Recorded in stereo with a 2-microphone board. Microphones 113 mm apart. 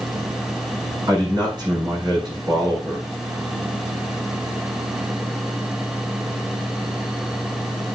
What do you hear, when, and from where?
1.1 s a man speaking: 40° right (ahead or behind), 6.5 m